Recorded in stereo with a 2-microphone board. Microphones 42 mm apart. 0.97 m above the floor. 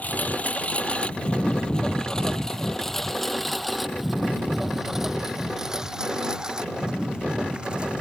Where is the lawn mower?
45° left (ahead or behind); by 8.0 s 25° right (ahead or behind).